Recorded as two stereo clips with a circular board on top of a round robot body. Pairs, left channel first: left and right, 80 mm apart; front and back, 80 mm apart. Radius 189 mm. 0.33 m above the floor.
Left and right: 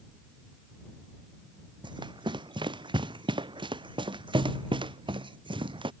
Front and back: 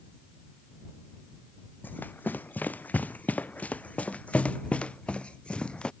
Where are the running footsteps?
70° right; by 5.9 s 80° right.